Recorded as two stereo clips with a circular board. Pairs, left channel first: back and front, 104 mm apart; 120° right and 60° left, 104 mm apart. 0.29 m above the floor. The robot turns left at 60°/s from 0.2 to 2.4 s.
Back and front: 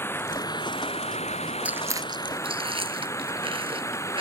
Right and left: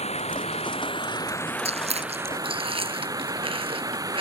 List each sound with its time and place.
0.0 s running water: 110° right; by 4.2 s 115° left
1.6 s chewing: 75° left; by 4.2 s 30° left